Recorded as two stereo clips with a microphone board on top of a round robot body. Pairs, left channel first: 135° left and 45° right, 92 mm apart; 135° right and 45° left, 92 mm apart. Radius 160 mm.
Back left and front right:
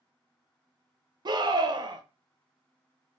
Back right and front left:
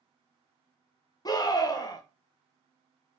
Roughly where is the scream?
Right.